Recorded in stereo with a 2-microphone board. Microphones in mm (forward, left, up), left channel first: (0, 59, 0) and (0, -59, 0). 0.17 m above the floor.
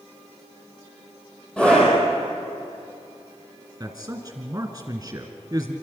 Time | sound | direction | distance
1.6 | a scream | 10° left (ahead or behind) | 4.5 m
3.8 | a man speaking | 25° right (ahead or behind) | 2 m